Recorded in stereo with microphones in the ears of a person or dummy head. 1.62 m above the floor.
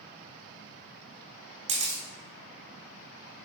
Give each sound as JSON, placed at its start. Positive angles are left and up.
{"t": 1.7, "sound": "a camera shutter", "side_deg": -35, "distance_m": 1.0}